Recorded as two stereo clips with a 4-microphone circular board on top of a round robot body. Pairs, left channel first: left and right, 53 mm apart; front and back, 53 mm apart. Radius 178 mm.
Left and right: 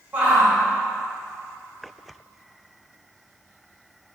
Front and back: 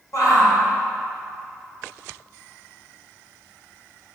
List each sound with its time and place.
0.1 s a shout: 20° right, 2.5 m